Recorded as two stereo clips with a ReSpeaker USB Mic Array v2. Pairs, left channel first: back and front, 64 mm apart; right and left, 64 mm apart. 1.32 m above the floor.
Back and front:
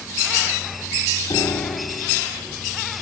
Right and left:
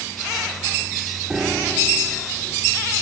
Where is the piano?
170° left.